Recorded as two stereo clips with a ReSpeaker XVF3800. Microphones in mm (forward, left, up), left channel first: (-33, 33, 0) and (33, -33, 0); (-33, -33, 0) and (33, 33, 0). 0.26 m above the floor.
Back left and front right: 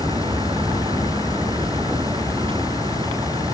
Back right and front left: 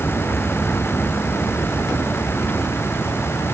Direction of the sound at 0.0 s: 65° right.